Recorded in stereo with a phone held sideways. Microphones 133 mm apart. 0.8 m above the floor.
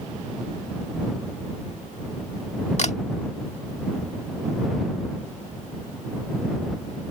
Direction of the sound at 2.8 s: 55° left (ahead or behind).